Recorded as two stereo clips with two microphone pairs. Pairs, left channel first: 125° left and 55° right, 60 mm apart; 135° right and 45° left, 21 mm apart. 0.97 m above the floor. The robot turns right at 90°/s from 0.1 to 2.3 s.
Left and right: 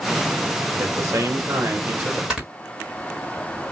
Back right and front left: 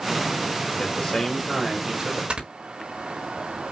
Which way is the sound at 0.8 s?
115° right.